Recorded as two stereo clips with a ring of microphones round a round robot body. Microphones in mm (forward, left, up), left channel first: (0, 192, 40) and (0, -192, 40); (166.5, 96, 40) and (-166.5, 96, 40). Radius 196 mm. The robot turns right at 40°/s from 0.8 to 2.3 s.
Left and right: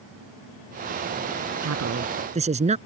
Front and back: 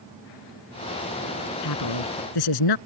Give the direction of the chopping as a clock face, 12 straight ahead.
No chopping in this recording.